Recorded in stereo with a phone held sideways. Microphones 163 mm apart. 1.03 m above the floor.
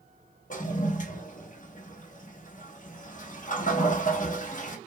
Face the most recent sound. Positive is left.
turn(degrees=55)  # may be behind; listen again after turning